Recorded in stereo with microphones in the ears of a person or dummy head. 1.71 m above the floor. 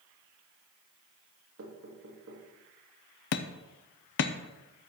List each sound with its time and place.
1.6 s knocking: 80° right, 2.5 m
3.3 s hammering: 60° left (ahead or behind), 0.7 m